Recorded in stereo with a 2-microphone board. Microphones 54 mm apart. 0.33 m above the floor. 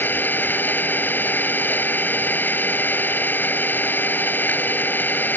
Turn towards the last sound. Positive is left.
turn(degrees=35)  # may be behind; listen again after turning